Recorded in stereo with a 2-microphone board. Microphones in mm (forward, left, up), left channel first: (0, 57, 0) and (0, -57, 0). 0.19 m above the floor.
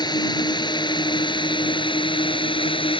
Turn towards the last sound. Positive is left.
turn(degrees=50)  # may be behind; listen again after turning